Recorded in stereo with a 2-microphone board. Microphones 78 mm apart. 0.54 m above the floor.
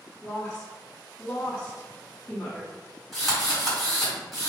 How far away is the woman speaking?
About 0.6 m.